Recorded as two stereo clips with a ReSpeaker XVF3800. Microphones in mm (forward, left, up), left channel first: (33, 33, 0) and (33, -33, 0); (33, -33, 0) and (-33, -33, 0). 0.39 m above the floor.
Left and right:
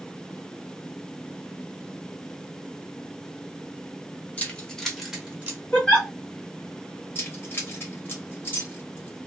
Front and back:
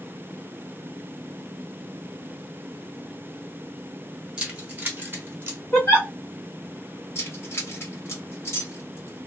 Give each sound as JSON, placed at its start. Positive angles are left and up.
{"t": 4.4, "sound": "keys jangling", "azimuth_deg": 120, "distance_m": 0.8}
{"t": 5.7, "sound": "a giggle", "azimuth_deg": 30, "distance_m": 1.5}
{"t": 7.2, "sound": "keys jangling", "azimuth_deg": 40, "distance_m": 1.1}